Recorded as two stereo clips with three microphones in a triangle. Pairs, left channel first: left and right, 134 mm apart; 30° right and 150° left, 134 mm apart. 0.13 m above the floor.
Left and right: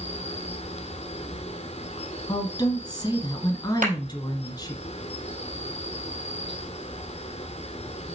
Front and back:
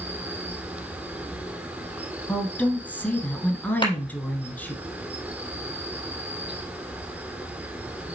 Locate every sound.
0.0 s an insect: 75° left, 1.0 m
2.3 s a woman speaking: 45° left, 1.4 m
3.8 s a clap: 80° right, 4 m